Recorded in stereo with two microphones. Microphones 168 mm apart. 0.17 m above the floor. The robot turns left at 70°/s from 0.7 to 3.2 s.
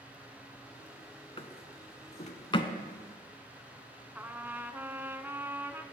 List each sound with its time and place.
1.4 s a drawer: 35° left (ahead or behind), 0.6 m; by 2.7 s 25° left (ahead or behind), 0.6 m
4.2 s a trumpet: 15° right (ahead or behind), 0.5 m